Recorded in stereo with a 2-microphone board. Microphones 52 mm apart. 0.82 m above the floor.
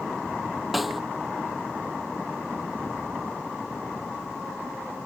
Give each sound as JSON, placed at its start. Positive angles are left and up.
{"t": 0.7, "sound": "a snare drum", "side_deg": 0}